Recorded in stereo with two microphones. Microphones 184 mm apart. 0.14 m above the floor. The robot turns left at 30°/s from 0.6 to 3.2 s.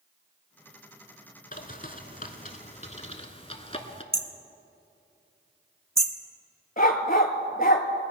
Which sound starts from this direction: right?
Hammering, at 4.1 s.